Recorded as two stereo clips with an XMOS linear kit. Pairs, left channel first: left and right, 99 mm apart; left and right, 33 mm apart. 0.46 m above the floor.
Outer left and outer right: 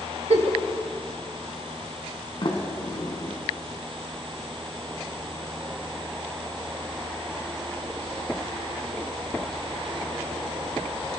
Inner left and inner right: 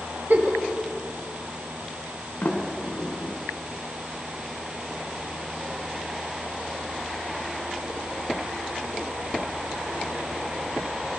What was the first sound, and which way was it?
A giggle, 75° right (ahead or behind).